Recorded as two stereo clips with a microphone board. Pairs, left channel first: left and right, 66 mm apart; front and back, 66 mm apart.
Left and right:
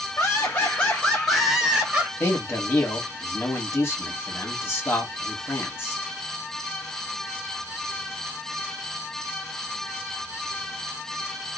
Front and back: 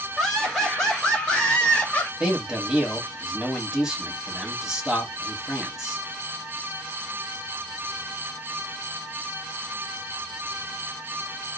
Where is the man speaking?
110° left, 1.2 m.